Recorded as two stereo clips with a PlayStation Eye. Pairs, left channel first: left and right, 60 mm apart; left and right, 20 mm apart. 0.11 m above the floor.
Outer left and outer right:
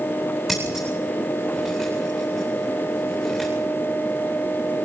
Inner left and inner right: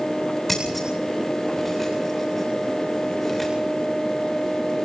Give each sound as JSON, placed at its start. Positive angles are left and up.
{"t": 0.5, "sound": "scissors", "side_deg": 0, "distance_m": 9.0}